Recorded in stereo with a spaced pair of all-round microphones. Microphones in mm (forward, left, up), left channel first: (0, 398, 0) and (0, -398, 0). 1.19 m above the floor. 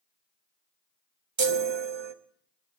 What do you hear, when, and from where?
1.4 s a chime: 40° right (ahead or behind), 0.6 m